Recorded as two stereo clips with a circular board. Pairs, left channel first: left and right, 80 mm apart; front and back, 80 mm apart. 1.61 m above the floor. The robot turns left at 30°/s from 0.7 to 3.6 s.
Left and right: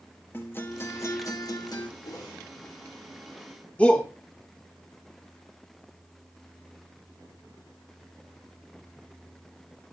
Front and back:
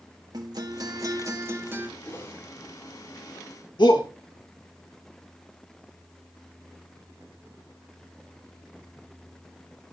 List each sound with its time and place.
0.3 s a guitar: 150° left, 1.8 m; by 1.9 s 115° left, 1.8 m
2.0 s a whoosh: 65° left, 5 m; by 2.4 s 55° left, 5 m
3.8 s a shout: 15° left, 2 m